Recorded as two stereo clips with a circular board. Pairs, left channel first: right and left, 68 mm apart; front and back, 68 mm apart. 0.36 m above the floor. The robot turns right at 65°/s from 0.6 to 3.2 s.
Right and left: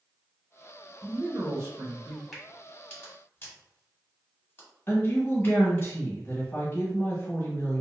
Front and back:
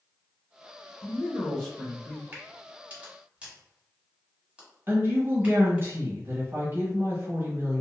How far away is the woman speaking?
About 1.3 m.